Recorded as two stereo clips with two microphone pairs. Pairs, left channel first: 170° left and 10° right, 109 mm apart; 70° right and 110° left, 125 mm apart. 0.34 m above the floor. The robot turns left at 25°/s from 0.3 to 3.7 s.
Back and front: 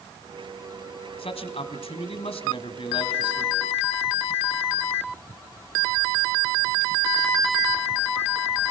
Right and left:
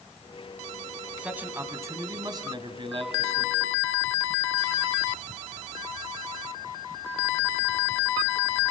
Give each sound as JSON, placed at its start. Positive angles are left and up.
{"t": 1.2, "sound": "a man speaking", "azimuth_deg": -170, "distance_m": 2.0}